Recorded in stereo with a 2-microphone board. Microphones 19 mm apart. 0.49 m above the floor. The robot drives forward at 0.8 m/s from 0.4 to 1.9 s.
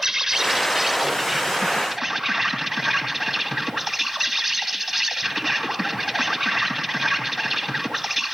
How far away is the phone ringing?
No phone ringing in this recording.